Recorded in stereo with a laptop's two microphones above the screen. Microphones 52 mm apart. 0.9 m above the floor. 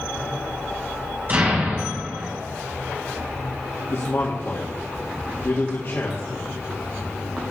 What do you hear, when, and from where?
1.3 s an explosion: 40° right (ahead or behind), 4.5 m
3.9 s a man speaking: 55° left (ahead or behind), 1.8 m